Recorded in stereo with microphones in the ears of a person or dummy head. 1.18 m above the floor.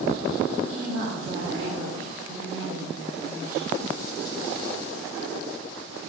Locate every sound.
0.6 s a woman speaking: 40° right (ahead or behind), 4 m; by 3.8 s 15° right (ahead or behind), 4 m